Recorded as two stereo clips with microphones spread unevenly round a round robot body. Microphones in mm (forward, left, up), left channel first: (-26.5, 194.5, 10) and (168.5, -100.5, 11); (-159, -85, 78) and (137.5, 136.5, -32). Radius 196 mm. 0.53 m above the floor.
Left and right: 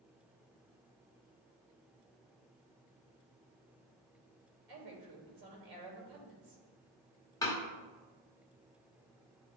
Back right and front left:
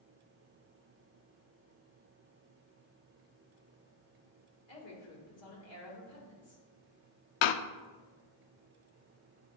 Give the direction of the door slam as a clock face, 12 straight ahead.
5 o'clock.